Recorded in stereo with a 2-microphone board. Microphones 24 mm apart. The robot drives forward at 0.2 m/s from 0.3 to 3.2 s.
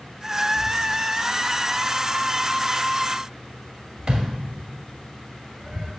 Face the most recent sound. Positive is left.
turn(degrees=-40)  # may be behind; listen again after turning